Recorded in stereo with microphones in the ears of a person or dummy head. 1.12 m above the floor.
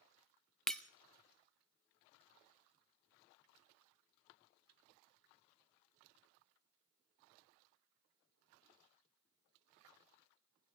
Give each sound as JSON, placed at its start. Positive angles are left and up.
{"t": 0.7, "sound": "breaking glass", "side_deg": 0, "distance_m": 0.5}